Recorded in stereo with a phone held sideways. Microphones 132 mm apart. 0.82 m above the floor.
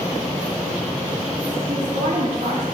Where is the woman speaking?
65° right (ahead or behind), 2.5 m.